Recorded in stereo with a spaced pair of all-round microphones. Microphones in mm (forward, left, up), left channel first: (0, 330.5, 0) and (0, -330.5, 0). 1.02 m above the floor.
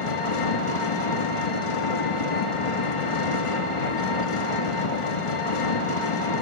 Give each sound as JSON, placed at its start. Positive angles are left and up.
{"t": 0.0, "sound": "an engine running", "side_deg": 50, "distance_m": 0.9}